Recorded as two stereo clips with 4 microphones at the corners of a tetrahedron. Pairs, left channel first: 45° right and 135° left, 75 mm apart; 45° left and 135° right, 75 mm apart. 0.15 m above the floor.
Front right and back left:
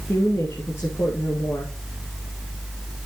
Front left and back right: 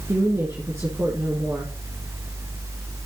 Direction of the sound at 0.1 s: 90° right.